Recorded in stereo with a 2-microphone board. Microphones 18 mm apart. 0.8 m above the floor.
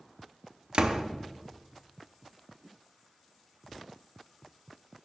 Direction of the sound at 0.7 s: 55° right (ahead or behind).